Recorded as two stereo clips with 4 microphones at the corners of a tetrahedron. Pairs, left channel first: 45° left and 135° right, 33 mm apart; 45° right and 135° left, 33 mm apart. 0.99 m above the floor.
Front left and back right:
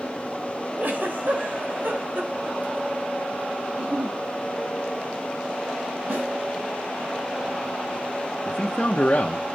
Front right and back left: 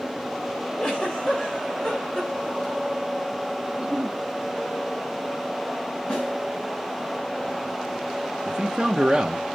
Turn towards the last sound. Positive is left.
turn(degrees=75)